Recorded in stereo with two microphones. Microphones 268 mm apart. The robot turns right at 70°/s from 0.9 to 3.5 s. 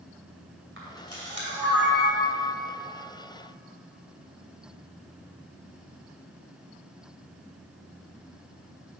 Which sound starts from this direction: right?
A camera shutter, at 0.8 s.